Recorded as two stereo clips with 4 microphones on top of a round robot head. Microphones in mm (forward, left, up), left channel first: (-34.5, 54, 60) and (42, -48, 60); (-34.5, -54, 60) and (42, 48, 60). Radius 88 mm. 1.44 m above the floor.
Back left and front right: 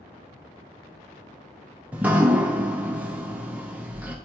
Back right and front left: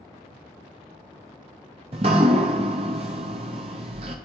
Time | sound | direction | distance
1.9 | dripping | 20° left | 0.6 m